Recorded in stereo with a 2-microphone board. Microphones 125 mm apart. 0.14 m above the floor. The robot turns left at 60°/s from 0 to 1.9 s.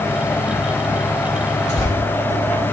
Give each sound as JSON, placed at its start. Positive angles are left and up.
{"t": 1.7, "sound": "tearing paper", "side_deg": 70, "distance_m": 4.0}